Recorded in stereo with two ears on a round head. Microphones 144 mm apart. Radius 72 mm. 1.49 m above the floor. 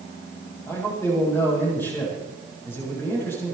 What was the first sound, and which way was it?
A man speaking, 15° left (ahead or behind).